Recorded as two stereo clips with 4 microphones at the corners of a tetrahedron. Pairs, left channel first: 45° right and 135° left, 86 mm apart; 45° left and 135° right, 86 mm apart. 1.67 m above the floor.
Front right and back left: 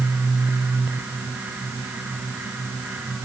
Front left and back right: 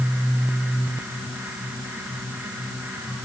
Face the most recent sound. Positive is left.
No sound to turn to.